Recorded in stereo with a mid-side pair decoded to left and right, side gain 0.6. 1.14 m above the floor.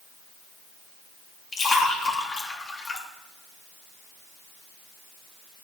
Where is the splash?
35° left, 2 m.